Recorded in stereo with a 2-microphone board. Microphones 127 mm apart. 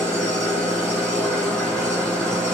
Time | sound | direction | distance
0.0 | an engine running | 5° left (ahead or behind) | 4.5 m